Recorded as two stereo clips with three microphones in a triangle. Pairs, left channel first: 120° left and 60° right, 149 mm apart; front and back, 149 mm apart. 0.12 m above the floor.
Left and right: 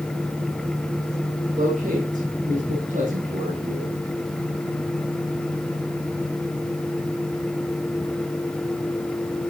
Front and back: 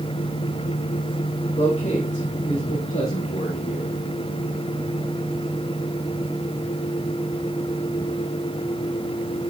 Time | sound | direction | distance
1.5 | a man speaking | 40° right | 4.5 m